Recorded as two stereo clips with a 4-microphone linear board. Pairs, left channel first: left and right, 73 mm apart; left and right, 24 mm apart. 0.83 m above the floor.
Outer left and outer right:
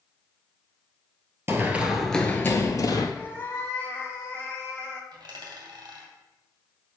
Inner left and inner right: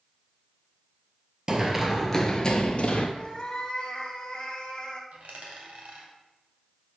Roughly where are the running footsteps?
Right.